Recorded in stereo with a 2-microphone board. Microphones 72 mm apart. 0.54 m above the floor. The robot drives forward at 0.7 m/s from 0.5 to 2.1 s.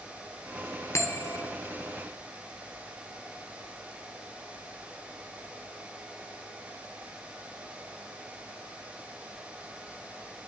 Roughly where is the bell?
Left.